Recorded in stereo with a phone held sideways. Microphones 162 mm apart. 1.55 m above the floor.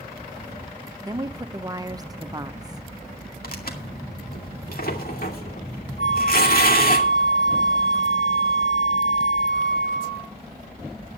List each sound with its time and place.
1.0 s a woman speaking: 25° right (ahead or behind), 0.9 m
3.4 s tearing paper: 65° left (ahead or behind), 2.5 m
6.0 s a flute: 55° left (ahead or behind), 3 m